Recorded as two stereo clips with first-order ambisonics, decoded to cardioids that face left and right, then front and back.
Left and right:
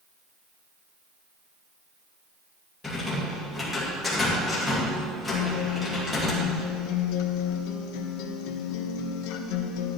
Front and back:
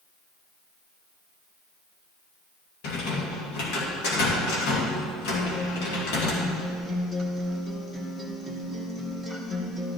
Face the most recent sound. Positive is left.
turn(degrees=90)